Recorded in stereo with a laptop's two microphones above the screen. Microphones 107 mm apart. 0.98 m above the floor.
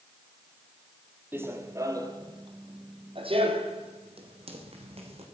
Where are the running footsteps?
20° right (ahead or behind), 1.5 m; by 5.2 s 65° right (ahead or behind), 2.5 m.